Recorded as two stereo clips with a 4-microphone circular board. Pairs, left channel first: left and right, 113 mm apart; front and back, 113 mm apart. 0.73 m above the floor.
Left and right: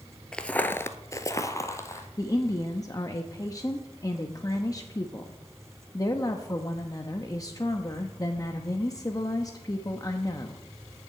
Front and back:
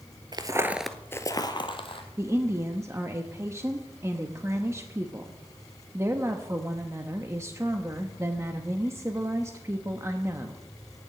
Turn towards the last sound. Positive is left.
turn(degrees=130)